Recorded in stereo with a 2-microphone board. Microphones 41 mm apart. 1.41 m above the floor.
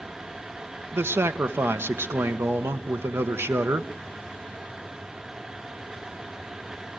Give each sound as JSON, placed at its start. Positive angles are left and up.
{"t": 0.9, "sound": "a man speaking", "side_deg": -80, "distance_m": 1.2}